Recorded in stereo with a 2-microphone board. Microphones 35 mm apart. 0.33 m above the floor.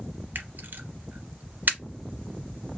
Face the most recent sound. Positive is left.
turn(degrees=-65)  # may be behind; listen again after turning